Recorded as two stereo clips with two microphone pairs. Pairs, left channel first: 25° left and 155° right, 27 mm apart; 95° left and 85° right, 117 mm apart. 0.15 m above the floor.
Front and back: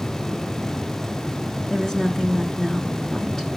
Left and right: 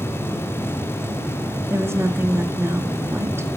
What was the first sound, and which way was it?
A woman speaking, 30° right.